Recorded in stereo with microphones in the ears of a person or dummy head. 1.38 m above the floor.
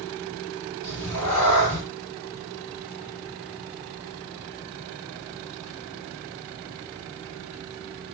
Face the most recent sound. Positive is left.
turn(degrees=10)  # may be behind; listen again after turning